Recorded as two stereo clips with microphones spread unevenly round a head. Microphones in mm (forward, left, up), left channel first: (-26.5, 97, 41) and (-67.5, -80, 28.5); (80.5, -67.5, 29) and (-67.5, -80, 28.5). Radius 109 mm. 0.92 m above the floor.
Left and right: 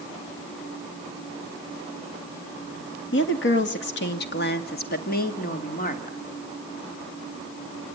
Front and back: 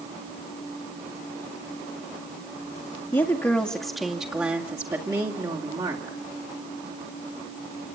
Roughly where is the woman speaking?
Left.